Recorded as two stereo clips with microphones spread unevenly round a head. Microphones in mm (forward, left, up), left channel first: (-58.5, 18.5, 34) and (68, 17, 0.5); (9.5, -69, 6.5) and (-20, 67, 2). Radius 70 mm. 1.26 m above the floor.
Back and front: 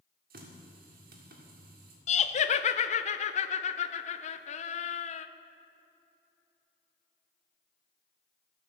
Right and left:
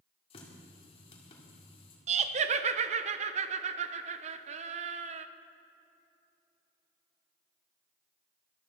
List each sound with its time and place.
0.3 s a running tap: 25° right, 2 m
2.1 s laughter: 140° left, 0.8 m